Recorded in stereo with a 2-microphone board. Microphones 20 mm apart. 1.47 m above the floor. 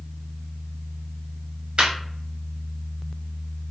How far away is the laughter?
About 0.8 m.